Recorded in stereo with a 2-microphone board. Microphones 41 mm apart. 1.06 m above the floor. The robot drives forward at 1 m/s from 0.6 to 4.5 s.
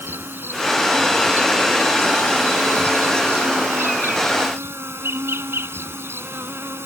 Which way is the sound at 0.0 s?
70° right (ahead or behind).